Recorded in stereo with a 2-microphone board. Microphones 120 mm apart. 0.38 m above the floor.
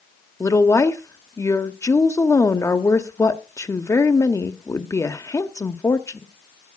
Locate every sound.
0.4 s a woman speaking: 25° left (ahead or behind), 1.0 m